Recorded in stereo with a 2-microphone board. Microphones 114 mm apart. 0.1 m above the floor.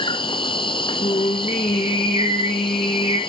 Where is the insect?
50° left (ahead or behind), 0.7 m.